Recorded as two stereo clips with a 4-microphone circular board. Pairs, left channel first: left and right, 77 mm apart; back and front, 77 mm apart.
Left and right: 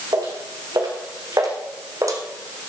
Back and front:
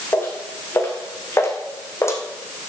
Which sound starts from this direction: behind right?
Footsteps, at 0.1 s.